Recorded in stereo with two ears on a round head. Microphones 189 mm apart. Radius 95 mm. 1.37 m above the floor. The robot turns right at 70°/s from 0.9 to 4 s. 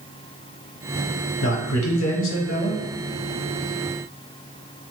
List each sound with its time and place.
1.4 s a man speaking: 55° left, 0.8 m; by 2.8 s 155° left, 0.8 m